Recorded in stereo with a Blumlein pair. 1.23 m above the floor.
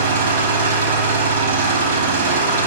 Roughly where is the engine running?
Ahead right.